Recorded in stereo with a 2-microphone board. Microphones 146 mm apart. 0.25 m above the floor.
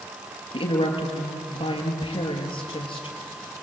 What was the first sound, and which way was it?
A woman speaking, 35° left (ahead or behind).